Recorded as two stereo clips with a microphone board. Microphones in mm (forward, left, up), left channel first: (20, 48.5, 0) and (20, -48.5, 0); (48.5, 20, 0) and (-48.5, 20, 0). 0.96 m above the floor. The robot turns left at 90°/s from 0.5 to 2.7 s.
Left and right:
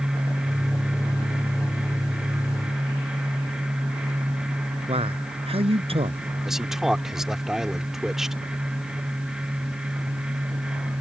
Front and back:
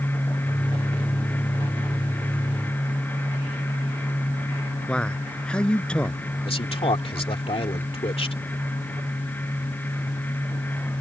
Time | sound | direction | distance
4.9 | a man speaking | 80° right | ?
6.5 | a man speaking | 5° right | ?